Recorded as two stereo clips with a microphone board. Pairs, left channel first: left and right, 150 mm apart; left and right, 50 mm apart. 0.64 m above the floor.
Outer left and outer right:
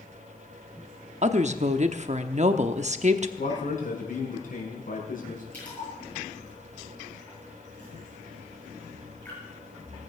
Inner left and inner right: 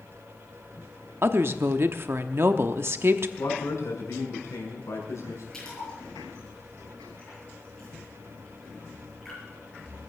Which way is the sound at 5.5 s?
10° left (ahead or behind).